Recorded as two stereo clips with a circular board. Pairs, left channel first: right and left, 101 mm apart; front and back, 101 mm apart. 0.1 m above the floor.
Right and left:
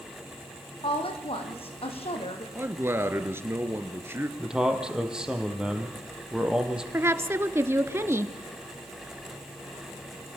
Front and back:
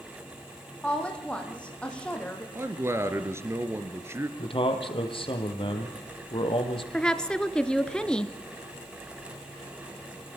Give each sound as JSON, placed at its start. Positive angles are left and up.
{"t": 0.8, "sound": "a woman speaking", "azimuth_deg": -80, "distance_m": 5.0}
{"t": 2.5, "sound": "a man speaking", "azimuth_deg": 140, "distance_m": 1.9}
{"t": 4.4, "sound": "a man speaking", "azimuth_deg": 10, "distance_m": 3.5}
{"t": 6.9, "sound": "a woman speaking", "azimuth_deg": 70, "distance_m": 1.3}